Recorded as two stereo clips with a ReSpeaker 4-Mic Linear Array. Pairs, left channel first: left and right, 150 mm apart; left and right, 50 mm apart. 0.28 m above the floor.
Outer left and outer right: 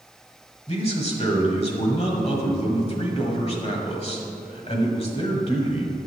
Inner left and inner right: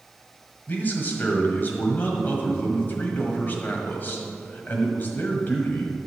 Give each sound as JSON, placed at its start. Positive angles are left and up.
{"t": 0.7, "sound": "a man speaking", "side_deg": 45, "distance_m": 1.4}